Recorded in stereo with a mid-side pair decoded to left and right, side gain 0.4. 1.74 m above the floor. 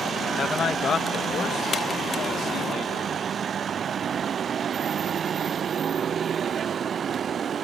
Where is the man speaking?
50° left; by 3.3 s 75° left.